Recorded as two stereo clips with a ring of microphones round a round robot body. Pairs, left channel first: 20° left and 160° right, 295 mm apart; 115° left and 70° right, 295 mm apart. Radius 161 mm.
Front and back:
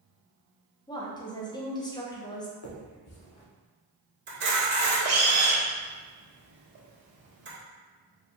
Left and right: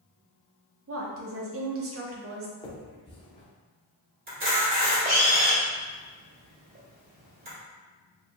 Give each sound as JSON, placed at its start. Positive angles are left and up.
{"t": 0.9, "sound": "a woman speaking", "azimuth_deg": -50, "distance_m": 0.9}
{"t": 2.6, "sound": "a finger snap", "azimuth_deg": 40, "distance_m": 1.0}
{"t": 4.3, "sound": "a camera shutter", "azimuth_deg": -115, "distance_m": 1.9}